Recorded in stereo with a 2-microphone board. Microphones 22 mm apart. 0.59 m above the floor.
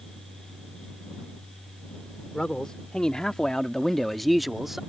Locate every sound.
2.3 s a man speaking: 45° left (ahead or behind); by 4.8 s 15° right (ahead or behind)